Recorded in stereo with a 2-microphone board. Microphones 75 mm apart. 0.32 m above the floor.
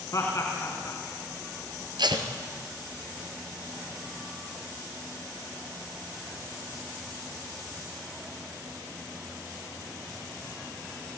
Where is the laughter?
45° left (ahead or behind), 3 m.